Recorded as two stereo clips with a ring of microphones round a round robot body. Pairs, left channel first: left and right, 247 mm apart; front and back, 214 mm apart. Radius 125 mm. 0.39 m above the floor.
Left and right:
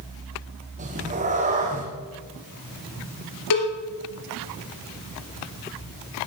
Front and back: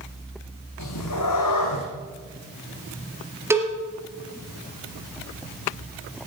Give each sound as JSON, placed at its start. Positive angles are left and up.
{"t": 0.8, "sound": "a cat meowing", "azimuth_deg": -30, "distance_m": 2.5}
{"t": 3.5, "sound": "a cowbell", "azimuth_deg": 100, "distance_m": 3.0}